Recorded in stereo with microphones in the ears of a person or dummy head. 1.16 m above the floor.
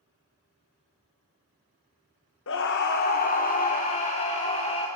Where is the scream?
60° left (ahead or behind), 1.2 m; by 4.9 s 25° left (ahead or behind), 4 m.